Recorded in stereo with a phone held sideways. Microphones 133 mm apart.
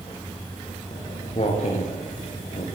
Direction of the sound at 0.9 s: 45° left (ahead or behind).